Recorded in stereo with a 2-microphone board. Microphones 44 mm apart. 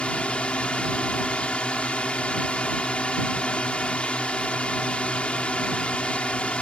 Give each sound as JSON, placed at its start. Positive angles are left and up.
{"t": 0.0, "sound": "a drone", "side_deg": 30}